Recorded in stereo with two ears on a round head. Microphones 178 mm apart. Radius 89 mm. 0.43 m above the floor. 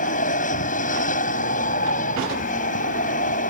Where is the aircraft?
40° left (ahead or behind).